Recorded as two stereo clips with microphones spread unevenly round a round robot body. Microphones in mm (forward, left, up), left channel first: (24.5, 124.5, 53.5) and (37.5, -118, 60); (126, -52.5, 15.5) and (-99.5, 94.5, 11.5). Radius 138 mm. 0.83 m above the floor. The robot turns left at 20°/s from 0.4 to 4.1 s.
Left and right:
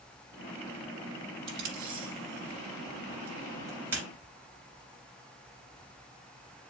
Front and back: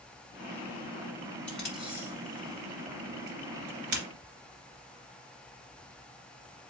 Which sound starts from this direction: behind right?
Tape being pulled, at 1.5 s.